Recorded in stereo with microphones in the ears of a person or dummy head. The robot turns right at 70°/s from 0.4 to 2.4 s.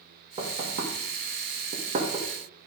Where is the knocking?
30° right (ahead or behind), 1.8 m; by 2.3 s 15° right (ahead or behind), 1.8 m.